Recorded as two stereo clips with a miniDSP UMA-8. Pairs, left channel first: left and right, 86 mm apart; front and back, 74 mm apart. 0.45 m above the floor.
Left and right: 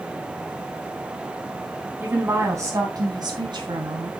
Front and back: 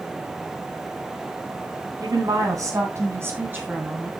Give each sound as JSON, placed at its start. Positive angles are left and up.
{"t": 2.0, "sound": "a woman speaking", "azimuth_deg": -155, "distance_m": 3.5}